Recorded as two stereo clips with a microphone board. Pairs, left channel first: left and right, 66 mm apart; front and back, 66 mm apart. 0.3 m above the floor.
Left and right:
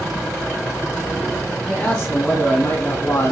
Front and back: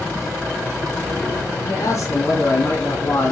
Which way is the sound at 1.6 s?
10° left.